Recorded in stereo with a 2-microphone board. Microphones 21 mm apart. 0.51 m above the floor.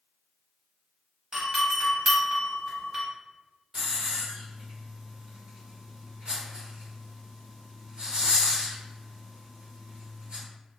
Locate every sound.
1.3 s a doorbell: 35° right (ahead or behind), 1.4 m
3.7 s a hiss: 50° right (ahead or behind), 1.8 m